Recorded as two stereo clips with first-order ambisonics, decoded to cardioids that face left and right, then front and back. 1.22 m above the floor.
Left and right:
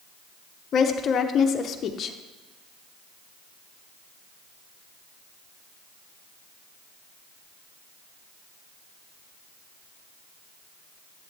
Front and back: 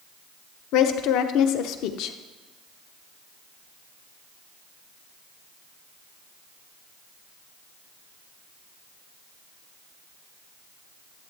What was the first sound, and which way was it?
A woman speaking, 30° left.